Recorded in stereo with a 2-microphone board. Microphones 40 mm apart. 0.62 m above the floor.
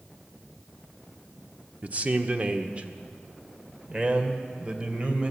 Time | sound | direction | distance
1.8 | a man speaking | 40° right (ahead or behind) | 1.3 m